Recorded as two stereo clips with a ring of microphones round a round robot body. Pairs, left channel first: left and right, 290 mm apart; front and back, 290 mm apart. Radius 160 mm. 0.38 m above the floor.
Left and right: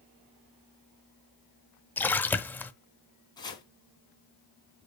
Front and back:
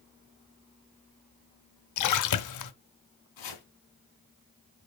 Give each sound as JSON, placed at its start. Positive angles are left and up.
{"t": 2.0, "sound": "a splash", "azimuth_deg": 5, "distance_m": 0.7}
{"t": 3.4, "sound": "chopping", "azimuth_deg": 15, "distance_m": 3.0}